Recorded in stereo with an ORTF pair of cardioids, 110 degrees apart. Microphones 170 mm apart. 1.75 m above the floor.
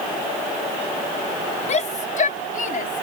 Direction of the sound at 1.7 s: 45° left.